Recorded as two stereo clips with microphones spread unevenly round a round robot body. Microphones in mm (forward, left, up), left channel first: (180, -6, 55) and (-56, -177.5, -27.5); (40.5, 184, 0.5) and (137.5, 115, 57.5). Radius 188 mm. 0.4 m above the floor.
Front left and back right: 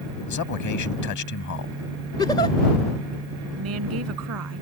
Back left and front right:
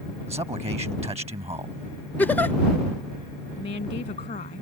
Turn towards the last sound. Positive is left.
turn(degrees=175)